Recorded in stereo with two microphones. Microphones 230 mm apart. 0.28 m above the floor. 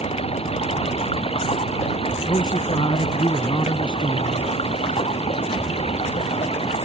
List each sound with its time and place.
0.0 s running water: 25° left (ahead or behind)
2.3 s a man speaking: 20° left (ahead or behind)